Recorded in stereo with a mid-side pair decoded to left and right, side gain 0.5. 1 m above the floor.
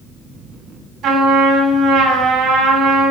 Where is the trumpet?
65° right, 8.5 m.